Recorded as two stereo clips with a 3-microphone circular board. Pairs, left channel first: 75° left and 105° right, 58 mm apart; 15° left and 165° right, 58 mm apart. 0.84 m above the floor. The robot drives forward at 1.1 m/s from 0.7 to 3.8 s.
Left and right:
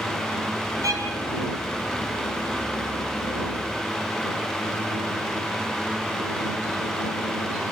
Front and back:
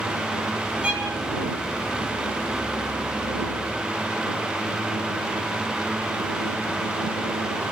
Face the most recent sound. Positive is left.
turn(degrees=-120)